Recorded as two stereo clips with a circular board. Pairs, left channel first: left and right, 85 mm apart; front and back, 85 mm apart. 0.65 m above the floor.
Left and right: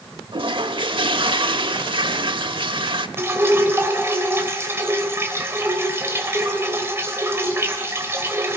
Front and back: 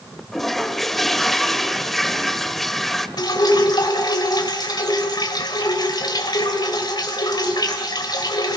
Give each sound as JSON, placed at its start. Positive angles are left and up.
{"t": 0.3, "sound": "a toilet flushing", "azimuth_deg": -85, "distance_m": 1.0}
{"t": 3.2, "sound": "dripping", "azimuth_deg": -30, "distance_m": 3.0}